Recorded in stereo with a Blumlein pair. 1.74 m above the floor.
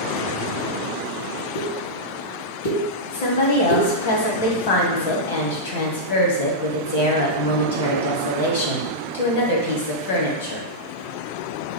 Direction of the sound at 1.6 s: 65° left.